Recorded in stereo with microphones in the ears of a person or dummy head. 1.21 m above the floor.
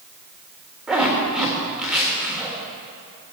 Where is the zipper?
Centre (ahead or behind), 2.5 m.